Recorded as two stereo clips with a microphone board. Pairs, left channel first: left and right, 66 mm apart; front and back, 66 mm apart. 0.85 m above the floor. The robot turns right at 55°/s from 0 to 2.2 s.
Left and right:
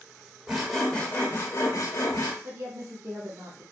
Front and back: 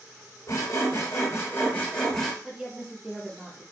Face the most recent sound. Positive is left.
turn(degrees=-100)